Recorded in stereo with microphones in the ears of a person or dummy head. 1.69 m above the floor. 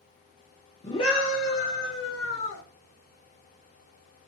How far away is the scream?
About 0.5 m.